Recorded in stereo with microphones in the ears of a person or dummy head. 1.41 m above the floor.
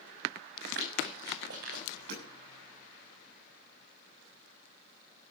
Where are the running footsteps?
70° right (ahead or behind), 6.5 m; by 2.0 s 75° right (ahead or behind), 6.5 m.